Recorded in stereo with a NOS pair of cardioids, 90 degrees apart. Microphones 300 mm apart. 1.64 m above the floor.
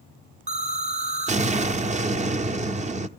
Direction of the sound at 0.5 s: 25° right.